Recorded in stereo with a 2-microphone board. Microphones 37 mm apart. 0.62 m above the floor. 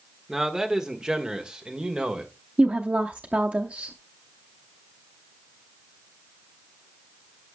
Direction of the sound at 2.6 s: 45° right (ahead or behind).